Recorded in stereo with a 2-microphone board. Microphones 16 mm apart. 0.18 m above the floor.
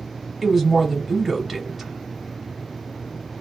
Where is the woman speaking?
25° right (ahead or behind), 1.3 m.